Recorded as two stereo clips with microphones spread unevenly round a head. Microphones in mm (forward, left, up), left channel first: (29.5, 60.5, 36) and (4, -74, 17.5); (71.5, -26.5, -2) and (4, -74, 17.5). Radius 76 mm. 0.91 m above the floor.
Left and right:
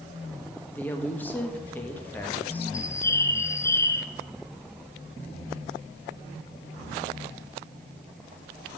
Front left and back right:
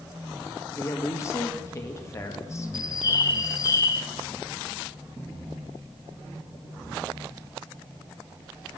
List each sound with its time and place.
0.8 s a woman speaking: straight ahead, 1.5 m
2.7 s a bird: 5° left, 0.7 m